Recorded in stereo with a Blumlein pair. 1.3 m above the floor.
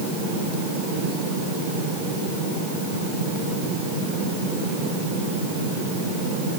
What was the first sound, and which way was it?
Only background noise.